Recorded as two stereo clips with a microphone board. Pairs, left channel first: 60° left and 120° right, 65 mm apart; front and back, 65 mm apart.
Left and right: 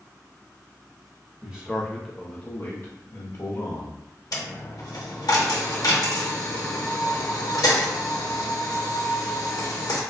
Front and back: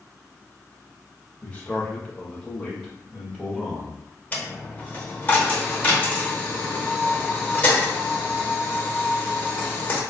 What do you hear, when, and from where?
1.4 s a man speaking: 60° right, 0.9 m; by 4.0 s 95° left, 1.4 m
4.3 s a dropped coin: 65° left, 0.8 m